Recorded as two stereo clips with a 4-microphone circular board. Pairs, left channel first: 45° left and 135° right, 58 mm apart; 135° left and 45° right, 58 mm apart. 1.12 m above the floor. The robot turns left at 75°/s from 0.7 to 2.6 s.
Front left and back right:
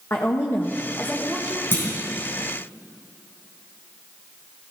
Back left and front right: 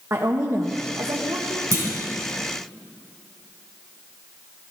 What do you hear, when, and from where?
0.1 s a woman speaking: 5° right, 1.2 m; by 1.6 s 75° right, 1.2 m
1.7 s a clunk: 10° right, 4.5 m; by 1.9 s 20° right, 4.5 m